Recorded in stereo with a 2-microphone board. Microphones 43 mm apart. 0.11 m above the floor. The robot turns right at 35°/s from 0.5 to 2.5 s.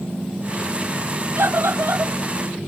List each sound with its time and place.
1.4 s a scream: 70° right (ahead or behind); by 2.1 s 65° right (ahead or behind)